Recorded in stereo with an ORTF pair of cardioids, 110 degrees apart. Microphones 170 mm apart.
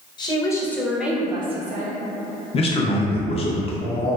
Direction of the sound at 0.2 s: 25° left.